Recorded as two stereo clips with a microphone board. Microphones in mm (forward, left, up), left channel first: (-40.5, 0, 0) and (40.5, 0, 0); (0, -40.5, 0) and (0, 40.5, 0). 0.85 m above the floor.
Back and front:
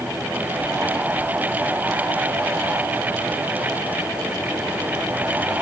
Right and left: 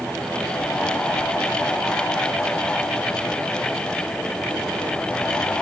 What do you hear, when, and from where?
Only background noise.